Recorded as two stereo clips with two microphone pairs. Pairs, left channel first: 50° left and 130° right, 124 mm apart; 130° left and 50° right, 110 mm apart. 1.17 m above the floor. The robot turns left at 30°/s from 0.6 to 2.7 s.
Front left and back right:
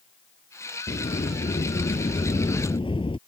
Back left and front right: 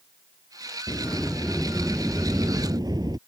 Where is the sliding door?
60° left; by 3.2 s 5° left.